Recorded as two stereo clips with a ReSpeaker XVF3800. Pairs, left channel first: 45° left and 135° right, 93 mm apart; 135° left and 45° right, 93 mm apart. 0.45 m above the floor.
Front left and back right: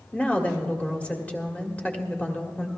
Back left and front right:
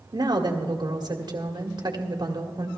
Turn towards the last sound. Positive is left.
turn(degrees=-25)